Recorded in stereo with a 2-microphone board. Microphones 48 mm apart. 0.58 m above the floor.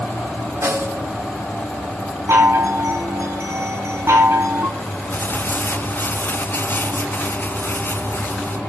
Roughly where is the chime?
Right.